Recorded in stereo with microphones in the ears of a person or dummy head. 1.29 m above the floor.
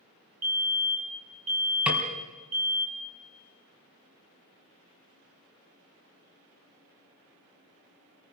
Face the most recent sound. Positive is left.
turn(degrees=-10)  # may be behind; listen again after turning